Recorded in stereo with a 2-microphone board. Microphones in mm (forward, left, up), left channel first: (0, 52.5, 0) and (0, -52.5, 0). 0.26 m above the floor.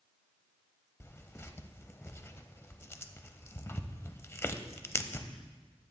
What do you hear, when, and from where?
1.0 s tearing paper: 25° left (ahead or behind), 0.5 m